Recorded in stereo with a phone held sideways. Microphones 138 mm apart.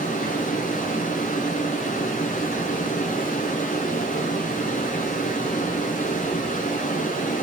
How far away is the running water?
About 5 m.